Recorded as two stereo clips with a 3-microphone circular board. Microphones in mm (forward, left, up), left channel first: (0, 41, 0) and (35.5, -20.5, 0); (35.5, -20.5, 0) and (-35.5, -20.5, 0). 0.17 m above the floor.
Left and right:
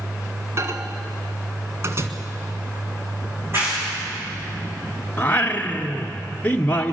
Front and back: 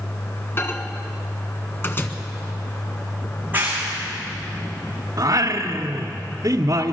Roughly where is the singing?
Behind.